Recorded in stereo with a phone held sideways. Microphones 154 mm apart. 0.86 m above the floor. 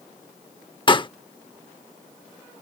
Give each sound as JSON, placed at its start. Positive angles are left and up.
{"t": 0.9, "sound": "a pop", "side_deg": 35}